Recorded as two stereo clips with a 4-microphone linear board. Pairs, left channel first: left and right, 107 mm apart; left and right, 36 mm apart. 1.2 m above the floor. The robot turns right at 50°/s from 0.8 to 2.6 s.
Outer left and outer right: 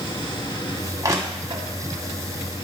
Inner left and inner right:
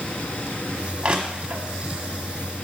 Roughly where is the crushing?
Right.